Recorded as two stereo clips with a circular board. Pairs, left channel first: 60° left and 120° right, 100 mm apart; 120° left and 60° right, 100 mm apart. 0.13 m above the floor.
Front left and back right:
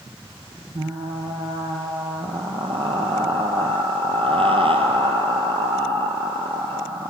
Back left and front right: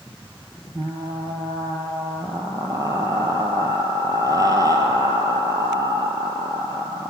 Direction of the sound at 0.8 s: 110° right.